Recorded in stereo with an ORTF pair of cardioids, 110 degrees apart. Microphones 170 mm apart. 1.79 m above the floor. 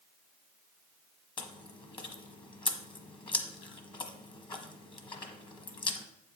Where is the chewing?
25° left, 1.2 m.